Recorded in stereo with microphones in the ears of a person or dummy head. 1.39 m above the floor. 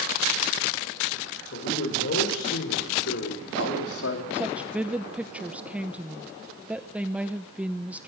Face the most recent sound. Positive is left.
turn(degrees=-5)  # may be behind; listen again after turning